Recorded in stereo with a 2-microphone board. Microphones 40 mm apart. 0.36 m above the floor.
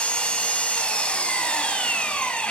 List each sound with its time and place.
0.0 s an engine running: 30° left (ahead or behind), 2.5 m